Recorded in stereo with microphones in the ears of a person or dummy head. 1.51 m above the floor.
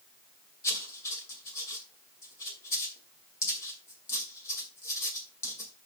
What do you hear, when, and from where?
0.6 s writing: 20° left (ahead or behind), 2.5 m